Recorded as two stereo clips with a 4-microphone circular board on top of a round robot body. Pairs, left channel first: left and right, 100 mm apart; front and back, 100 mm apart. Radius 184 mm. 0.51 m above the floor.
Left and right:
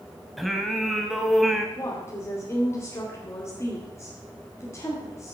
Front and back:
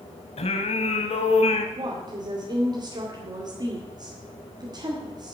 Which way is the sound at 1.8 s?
145° left.